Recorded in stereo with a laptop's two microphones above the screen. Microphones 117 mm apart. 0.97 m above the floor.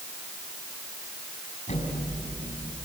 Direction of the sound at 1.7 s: 85° left.